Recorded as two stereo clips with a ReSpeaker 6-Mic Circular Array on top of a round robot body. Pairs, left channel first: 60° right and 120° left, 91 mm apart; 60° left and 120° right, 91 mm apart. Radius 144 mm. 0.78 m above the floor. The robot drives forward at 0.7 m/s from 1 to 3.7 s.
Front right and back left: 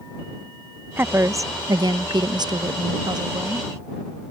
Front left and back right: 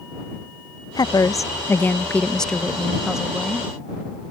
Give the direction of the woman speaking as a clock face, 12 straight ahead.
10 o'clock.